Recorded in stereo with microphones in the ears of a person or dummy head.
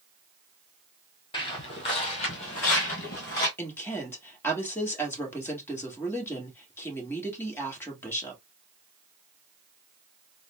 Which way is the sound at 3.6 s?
10° left (ahead or behind).